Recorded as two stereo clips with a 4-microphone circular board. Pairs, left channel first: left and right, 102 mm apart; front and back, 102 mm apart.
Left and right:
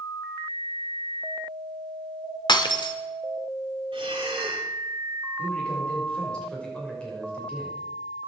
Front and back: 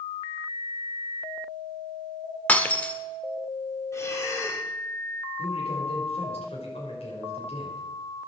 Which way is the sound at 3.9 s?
60° right.